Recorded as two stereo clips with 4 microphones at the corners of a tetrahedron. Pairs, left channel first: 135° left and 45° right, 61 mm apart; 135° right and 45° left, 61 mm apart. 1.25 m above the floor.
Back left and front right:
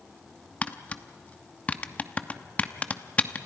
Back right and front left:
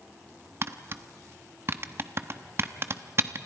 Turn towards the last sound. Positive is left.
turn(degrees=75)